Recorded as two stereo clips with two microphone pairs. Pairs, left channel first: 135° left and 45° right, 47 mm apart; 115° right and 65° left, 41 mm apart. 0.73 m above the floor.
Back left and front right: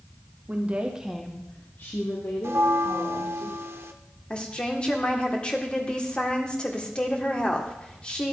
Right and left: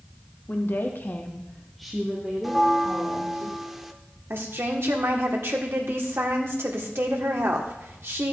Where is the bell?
20° right, 0.6 m.